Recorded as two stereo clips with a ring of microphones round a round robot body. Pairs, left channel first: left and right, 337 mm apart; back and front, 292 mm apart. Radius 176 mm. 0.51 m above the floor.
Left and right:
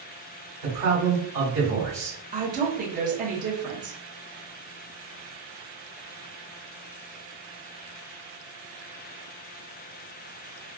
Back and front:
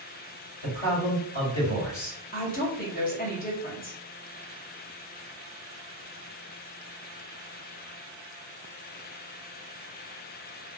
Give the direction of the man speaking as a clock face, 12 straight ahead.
5 o'clock.